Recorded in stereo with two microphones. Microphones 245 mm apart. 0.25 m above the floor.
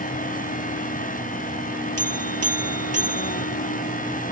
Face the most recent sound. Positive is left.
turn(degrees=-70)  # may be behind; listen again after turning